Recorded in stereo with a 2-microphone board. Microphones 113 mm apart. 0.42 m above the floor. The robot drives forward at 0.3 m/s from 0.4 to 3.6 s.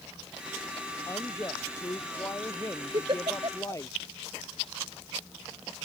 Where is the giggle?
45° right (ahead or behind); by 3.8 s 50° right (ahead or behind).